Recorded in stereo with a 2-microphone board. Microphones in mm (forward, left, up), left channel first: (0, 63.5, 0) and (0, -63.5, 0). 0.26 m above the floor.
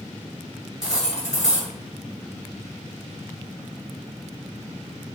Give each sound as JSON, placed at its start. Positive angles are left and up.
{"t": 0.8, "sound": "cutlery clinking", "side_deg": -5, "distance_m": 2.0}